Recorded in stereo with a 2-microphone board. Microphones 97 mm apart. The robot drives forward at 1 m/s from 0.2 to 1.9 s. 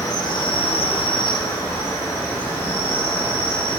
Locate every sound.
0.0 s an insect: 40° left (ahead or behind), 0.8 m; by 3.8 s 25° left (ahead or behind), 1.2 m